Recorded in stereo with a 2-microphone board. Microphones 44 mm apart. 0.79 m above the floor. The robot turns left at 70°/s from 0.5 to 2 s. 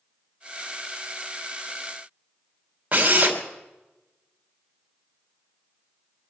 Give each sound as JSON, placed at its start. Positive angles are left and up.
{"t": 2.9, "sound": "a drill", "side_deg": -30, "distance_m": 3.0}